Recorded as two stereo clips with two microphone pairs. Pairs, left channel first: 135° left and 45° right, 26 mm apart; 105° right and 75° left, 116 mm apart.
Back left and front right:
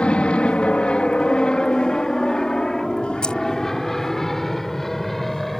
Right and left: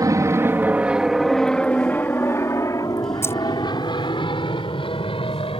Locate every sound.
0.0 s an aircraft: 125° left; by 5.6 s 145° right
3.2 s keys jangling: 175° right